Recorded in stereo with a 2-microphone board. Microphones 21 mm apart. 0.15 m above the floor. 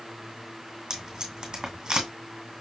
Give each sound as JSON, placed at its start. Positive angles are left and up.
{"t": 0.9, "sound": "tape being pulled", "side_deg": -40, "distance_m": 1.7}